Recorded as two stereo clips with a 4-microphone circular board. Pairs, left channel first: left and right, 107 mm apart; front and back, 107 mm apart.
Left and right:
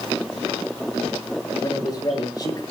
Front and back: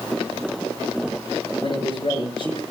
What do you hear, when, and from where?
1.6 s a man speaking: 35° left, 6.5 m